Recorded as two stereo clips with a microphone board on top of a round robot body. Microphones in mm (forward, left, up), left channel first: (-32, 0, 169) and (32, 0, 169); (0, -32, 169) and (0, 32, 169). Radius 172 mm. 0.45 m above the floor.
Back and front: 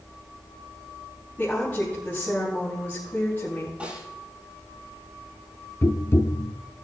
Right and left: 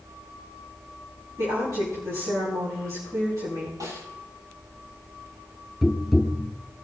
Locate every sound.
1.4 s a woman speaking: 115° left, 5.5 m
3.8 s a snare drum: 75° left, 7 m
5.8 s tapping: 175° left, 1.0 m